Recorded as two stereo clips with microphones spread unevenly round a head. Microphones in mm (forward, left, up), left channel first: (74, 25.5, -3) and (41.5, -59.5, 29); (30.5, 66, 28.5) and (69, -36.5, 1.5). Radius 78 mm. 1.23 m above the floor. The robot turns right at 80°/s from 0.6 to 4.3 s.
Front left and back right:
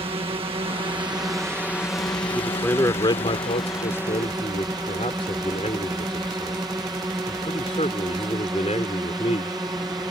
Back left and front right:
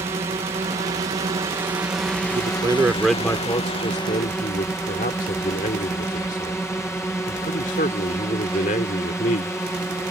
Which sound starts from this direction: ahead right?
A man speaking, at 2.4 s.